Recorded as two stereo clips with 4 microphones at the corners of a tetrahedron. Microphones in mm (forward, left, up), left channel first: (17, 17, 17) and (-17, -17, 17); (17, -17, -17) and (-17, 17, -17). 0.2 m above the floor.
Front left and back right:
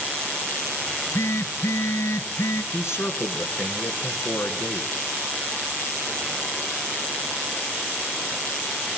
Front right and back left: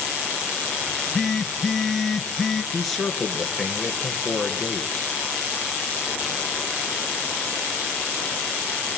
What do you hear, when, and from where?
0.9 s a phone buzzing: 40° left, 1.5 m
2.7 s a man speaking: 40° left, 2 m